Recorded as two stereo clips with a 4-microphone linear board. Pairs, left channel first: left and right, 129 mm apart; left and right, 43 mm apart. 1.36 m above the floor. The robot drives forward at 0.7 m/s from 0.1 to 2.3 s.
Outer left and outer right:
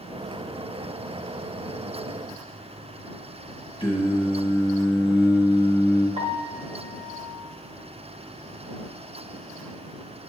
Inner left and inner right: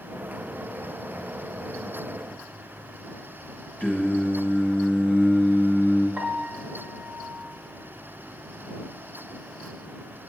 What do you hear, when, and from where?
3.8 s singing: 40° left (ahead or behind), 1.7 m
6.2 s a piano: 50° right (ahead or behind), 1.0 m